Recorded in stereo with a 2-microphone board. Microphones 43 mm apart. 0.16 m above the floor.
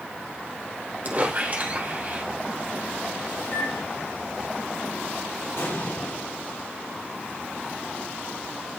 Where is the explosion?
70° left (ahead or behind), 2.5 m.